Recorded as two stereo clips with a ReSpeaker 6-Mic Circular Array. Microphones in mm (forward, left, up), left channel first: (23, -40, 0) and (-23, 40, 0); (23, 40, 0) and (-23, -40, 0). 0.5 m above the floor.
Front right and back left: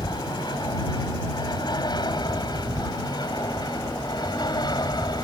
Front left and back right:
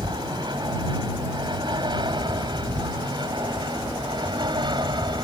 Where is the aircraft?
90° right.